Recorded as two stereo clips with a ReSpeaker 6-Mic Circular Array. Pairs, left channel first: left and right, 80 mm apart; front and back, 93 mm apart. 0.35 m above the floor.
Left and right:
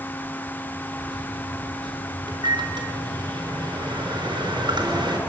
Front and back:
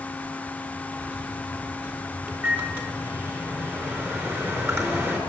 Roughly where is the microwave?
Behind right.